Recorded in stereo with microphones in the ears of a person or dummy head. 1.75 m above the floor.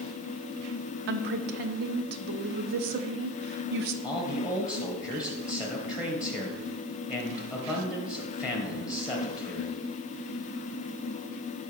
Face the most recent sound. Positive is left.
turn(degrees=-5)  # may be behind; listen again after turning